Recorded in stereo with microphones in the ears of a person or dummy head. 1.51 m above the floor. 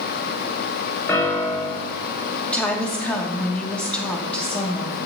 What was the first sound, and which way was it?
A piano, 15° left (ahead or behind).